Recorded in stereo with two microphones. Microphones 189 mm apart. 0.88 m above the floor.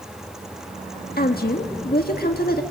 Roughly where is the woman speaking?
Left.